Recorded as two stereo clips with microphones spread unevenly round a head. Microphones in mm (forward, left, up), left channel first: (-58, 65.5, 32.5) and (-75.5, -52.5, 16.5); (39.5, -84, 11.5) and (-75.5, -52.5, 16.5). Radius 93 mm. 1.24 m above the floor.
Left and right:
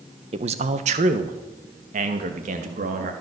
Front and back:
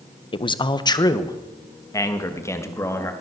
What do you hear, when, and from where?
0.3 s a man speaking: 60° right, 0.9 m; by 3.1 s 80° right, 2.5 m